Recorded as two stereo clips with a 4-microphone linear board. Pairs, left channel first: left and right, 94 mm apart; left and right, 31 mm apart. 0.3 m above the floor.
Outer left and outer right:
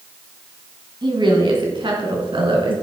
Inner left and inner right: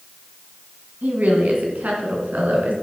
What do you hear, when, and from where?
1.0 s a woman speaking: 55° right (ahead or behind), 2.5 m; by 2.7 s 65° right (ahead or behind), 4 m